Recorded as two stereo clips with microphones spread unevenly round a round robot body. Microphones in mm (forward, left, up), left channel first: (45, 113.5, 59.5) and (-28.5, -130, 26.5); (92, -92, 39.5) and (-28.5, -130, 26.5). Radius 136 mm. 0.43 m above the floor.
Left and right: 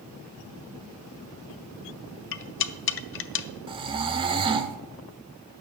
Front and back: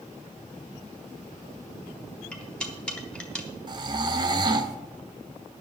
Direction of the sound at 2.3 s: 105° left.